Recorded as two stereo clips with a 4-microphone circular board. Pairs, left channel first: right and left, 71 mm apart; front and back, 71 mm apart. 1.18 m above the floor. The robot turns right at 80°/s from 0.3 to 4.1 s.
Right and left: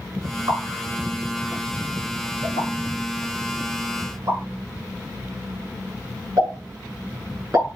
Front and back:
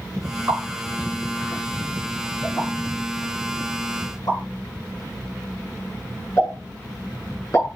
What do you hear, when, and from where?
0.5 s a pop: 115° left, 7.5 m; by 7.7 s 45° left, 7.5 m